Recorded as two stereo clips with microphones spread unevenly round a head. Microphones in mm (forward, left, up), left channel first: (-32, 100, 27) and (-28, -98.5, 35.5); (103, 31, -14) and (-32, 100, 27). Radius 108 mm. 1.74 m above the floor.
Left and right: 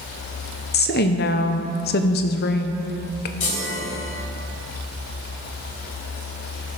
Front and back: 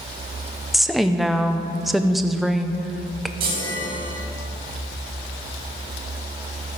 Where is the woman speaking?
85° left, 0.7 m.